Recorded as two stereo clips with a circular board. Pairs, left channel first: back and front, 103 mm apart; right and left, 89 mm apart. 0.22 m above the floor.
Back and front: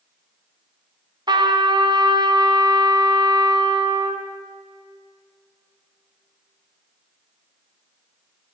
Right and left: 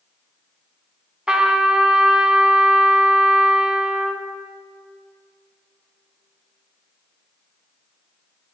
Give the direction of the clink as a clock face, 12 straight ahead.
No clink in this recording.